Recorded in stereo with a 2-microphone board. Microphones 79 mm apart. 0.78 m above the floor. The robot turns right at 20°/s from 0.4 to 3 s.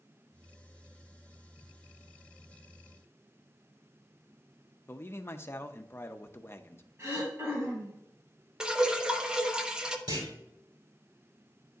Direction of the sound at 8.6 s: 10° right (ahead or behind).